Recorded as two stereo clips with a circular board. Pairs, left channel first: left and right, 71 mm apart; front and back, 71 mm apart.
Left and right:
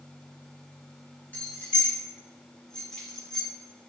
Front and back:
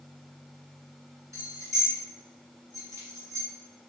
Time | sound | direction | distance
1.3 | keys jangling | 150° left | 2 m